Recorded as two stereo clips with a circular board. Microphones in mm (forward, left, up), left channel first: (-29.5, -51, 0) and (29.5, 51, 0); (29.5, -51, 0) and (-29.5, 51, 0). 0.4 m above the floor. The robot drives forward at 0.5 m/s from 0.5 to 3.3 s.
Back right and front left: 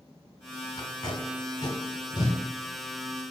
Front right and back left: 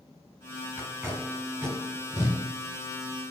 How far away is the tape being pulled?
About 1.2 m.